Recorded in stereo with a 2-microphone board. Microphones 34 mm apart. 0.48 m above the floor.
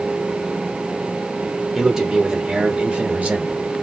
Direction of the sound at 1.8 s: 10° right (ahead or behind).